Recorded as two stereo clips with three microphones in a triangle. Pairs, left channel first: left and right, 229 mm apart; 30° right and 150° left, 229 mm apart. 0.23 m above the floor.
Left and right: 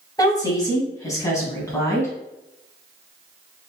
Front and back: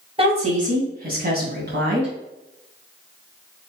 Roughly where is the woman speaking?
Behind left.